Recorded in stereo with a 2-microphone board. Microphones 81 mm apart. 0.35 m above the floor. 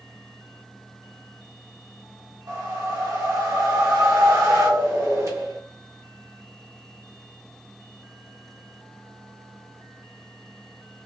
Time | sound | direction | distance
2.5 | a whoosh | 45° right (ahead or behind) | 1.1 m